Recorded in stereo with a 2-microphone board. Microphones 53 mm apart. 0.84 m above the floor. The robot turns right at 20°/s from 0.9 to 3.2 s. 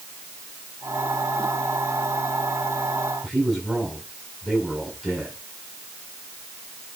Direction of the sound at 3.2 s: 5° right (ahead or behind).